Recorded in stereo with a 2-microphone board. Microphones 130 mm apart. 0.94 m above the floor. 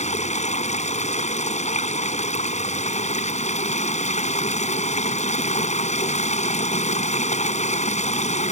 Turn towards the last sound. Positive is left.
turn(degrees=60)  # may be behind; listen again after turning